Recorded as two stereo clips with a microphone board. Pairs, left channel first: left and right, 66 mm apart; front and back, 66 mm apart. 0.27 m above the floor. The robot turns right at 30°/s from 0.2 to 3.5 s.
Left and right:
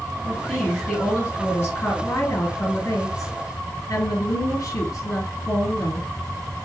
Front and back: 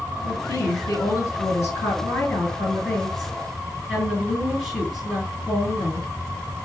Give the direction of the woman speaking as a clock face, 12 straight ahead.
12 o'clock.